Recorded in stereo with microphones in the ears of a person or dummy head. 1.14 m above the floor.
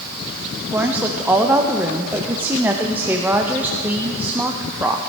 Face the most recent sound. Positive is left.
turn(degrees=-10)  # may be behind; listen again after turning